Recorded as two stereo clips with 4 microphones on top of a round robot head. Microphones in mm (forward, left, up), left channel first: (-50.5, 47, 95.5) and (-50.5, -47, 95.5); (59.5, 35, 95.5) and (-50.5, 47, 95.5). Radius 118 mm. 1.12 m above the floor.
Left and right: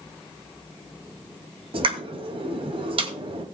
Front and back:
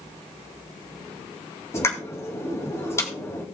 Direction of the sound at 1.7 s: 70° right.